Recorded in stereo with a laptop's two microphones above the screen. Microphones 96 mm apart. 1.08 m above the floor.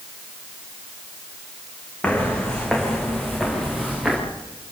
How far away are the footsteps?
About 4 m.